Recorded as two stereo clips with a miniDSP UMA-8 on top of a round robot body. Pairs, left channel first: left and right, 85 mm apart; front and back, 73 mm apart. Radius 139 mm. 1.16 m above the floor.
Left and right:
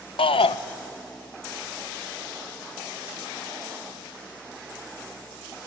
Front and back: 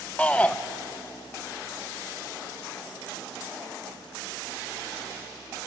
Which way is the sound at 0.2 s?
75° left.